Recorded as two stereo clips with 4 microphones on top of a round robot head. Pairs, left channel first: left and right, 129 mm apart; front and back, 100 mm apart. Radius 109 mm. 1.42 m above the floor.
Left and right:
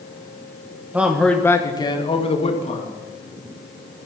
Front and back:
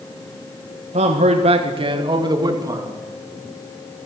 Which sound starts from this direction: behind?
A man speaking, at 0.9 s.